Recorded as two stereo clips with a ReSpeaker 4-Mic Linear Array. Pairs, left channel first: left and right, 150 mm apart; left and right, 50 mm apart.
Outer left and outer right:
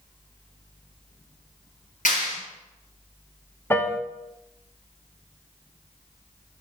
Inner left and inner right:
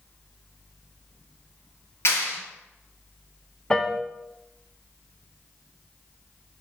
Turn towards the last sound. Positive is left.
turn(degrees=15)  # may be behind; listen again after turning